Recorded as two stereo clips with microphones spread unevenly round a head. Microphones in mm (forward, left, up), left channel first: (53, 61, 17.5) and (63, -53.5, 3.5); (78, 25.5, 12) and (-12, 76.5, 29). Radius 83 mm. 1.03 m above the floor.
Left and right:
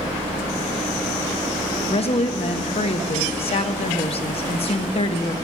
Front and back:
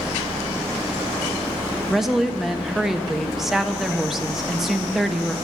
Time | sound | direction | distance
1.9 | a woman speaking | 60° left | 1.3 m